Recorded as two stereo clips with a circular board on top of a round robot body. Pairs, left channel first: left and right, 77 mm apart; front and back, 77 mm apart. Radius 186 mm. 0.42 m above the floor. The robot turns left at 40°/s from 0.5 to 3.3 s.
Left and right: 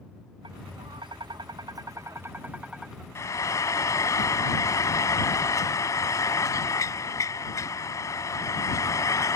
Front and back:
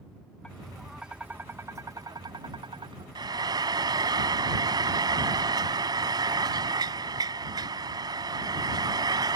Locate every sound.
0.4 s tapping: 80° right; by 3.0 s straight behind
3.1 s frying: 145° left; by 9.4 s 140° left